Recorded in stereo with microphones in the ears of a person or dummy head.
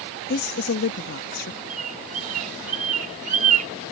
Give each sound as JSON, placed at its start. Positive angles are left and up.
{"t": 0.3, "sound": "a woman speaking", "side_deg": 55}
{"t": 1.7, "sound": "a bird", "side_deg": -40}